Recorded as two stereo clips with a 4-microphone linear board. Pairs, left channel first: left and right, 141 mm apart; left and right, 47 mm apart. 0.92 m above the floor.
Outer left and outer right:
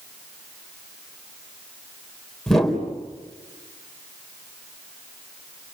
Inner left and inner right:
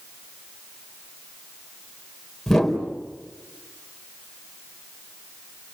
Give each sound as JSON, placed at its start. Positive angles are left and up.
{"t": 2.5, "sound": "a whoosh", "side_deg": 5, "distance_m": 4.0}